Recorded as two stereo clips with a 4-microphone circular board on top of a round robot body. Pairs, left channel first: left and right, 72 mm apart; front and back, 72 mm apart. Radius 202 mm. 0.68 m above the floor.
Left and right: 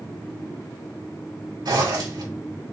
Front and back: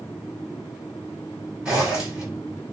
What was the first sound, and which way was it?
A zipper, 100° right.